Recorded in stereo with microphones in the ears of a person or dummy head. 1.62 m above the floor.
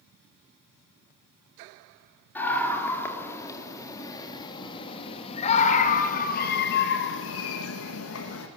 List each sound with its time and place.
2.4 s a scream: 10° left (ahead or behind), 4 m; by 8.5 s 75° left (ahead or behind), 2.0 m